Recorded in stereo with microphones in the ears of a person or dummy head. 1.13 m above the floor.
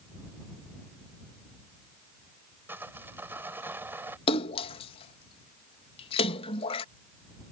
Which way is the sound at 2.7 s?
10° right (ahead or behind).